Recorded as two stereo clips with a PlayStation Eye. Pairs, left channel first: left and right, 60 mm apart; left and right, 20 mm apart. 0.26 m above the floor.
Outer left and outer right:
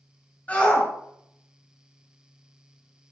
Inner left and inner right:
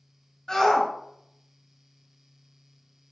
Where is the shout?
25° left (ahead or behind), 1.7 m.